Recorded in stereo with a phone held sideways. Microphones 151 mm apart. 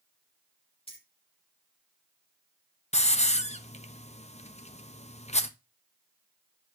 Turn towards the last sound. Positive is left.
turn(degrees=45)  # may be behind; listen again after turning